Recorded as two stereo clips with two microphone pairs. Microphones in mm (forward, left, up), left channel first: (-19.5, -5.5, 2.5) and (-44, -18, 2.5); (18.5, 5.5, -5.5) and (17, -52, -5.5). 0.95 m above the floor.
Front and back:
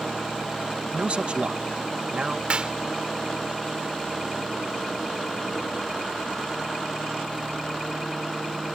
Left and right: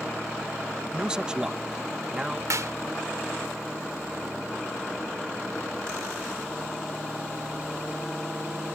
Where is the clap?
100° right.